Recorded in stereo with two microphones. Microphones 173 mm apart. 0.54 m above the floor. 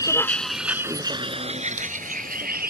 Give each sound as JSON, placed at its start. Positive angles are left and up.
{"t": 0.0, "sound": "a vehicle", "side_deg": 20}